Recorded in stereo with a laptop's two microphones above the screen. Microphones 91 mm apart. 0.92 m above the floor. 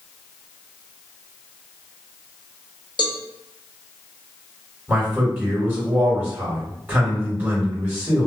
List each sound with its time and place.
3.0 s a cowbell: 55° left (ahead or behind), 0.5 m
4.9 s a man speaking: 25° right (ahead or behind), 1.6 m